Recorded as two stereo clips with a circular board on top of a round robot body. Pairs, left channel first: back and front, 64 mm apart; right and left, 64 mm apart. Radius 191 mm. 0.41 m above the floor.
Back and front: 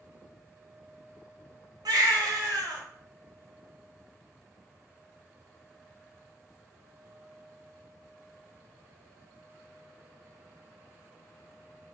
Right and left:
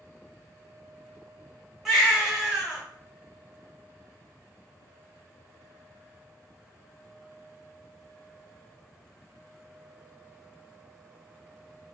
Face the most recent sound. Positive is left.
turn(degrees=5)